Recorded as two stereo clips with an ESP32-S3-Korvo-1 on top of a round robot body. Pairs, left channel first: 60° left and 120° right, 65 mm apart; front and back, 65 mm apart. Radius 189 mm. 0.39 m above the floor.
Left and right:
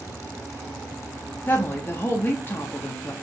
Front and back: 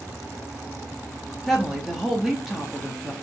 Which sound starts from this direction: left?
A woman speaking, at 1.5 s.